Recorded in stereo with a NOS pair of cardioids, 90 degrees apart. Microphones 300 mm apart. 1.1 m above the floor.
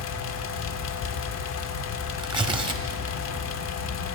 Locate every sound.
0.0 s a fan: 65° left, 0.9 m
2.2 s tearing paper: 15° right, 1.3 m